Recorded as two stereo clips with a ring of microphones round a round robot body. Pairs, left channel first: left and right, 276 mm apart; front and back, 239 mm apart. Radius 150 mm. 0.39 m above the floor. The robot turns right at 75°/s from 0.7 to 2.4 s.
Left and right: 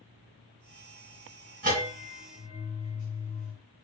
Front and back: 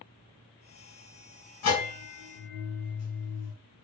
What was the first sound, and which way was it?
A bell, 30° right.